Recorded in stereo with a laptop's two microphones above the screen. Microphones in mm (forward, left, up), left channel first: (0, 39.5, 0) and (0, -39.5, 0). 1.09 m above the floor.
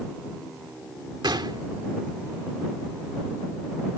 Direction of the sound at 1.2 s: 75° right (ahead or behind).